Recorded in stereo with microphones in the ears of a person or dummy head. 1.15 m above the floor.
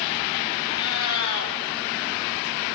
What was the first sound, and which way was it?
A cat meowing, 85° left.